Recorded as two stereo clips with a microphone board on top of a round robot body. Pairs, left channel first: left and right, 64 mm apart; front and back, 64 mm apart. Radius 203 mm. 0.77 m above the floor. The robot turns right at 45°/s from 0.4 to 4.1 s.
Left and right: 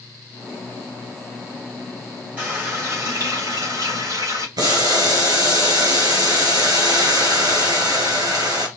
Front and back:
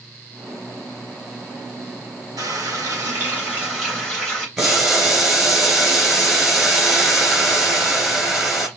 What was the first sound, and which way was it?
A running tap, 160° right.